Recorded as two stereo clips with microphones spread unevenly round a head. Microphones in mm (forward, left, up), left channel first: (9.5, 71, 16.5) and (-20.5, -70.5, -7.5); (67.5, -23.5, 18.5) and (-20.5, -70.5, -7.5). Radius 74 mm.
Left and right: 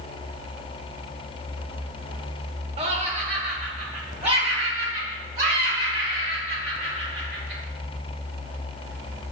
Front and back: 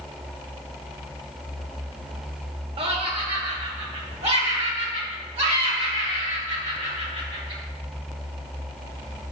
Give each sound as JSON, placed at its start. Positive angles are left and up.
{"t": 2.8, "sound": "laughter", "azimuth_deg": -145, "distance_m": 0.9}